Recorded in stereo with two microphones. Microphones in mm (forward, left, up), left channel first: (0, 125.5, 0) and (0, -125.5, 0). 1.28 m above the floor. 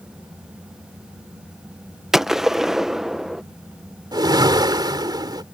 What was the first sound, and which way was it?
A gunshot, centre (ahead or behind).